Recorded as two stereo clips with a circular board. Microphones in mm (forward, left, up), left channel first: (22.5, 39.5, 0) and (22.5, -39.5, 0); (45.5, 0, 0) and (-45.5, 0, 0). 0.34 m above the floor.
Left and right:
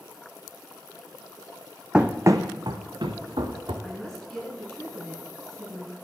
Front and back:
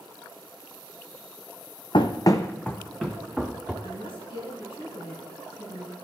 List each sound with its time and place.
1.9 s running footsteps: 10° right, 0.7 m; by 3.7 s 100° right, 2.0 m
3.8 s a woman speaking: 15° left, 3 m